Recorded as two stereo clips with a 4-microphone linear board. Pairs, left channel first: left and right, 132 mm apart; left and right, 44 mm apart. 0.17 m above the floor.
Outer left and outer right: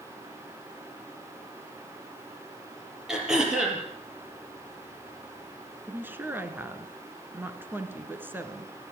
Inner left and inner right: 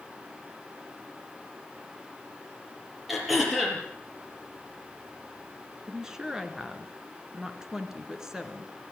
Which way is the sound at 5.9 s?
15° right (ahead or behind).